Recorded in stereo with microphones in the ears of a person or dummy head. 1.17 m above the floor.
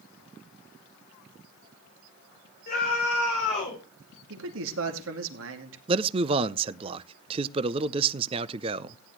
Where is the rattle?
I don't hear a rattle.